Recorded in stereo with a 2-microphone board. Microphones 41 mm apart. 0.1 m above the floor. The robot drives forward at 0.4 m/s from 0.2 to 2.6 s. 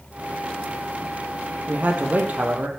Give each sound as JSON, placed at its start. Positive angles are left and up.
{"t": 1.7, "sound": "a man speaking", "side_deg": -40, "distance_m": 3.0}